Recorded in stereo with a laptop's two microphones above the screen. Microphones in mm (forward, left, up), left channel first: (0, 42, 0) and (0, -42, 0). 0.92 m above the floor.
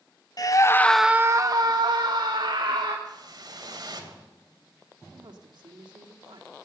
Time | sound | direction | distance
0.4 | a scream | 50° left (ahead or behind) | 1.0 m
3.0 | a whoosh | 50° right (ahead or behind) | 2.5 m
5.1 | a woman speaking | 60° right (ahead or behind) | 2.5 m